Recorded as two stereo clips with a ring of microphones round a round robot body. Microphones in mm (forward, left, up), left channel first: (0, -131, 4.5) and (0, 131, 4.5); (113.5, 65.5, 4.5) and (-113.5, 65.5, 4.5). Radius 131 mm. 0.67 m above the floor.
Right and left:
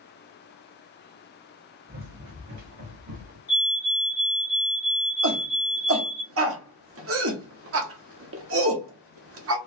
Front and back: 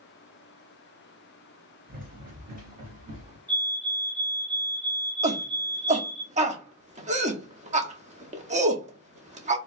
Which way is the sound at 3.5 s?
140° right.